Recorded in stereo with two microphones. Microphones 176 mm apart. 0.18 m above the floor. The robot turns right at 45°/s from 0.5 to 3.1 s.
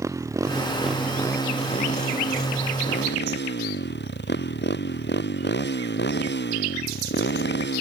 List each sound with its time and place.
0.0 s a motorcycle: 15° right (ahead or behind); by 7.8 s 85° left